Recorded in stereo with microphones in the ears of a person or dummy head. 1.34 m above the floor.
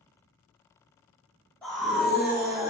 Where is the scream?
5° left (ahead or behind), 1.2 m; by 2.7 s 20° right (ahead or behind), 1.1 m.